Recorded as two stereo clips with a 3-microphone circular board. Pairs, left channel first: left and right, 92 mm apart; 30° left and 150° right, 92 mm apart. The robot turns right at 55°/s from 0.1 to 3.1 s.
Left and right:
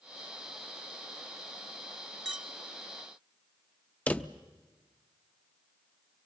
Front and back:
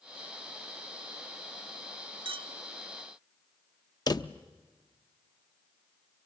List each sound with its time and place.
2.2 s a clink: 175° right, 1.0 m; by 2.5 s 160° right, 1.0 m
4.1 s a drawer: 25° left, 0.5 m